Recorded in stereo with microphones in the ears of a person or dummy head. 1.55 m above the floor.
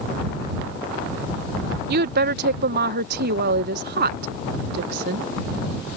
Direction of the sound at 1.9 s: 60° right (ahead or behind).